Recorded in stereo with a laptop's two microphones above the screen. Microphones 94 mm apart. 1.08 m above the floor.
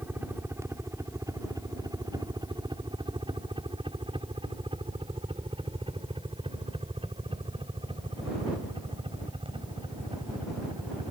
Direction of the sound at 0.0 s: 25° right (ahead or behind).